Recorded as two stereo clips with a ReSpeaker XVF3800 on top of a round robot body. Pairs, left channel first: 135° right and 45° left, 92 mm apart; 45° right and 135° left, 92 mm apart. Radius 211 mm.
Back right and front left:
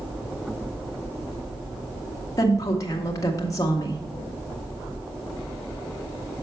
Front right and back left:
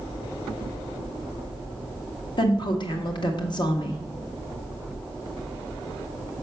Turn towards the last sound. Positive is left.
turn(degrees=-80)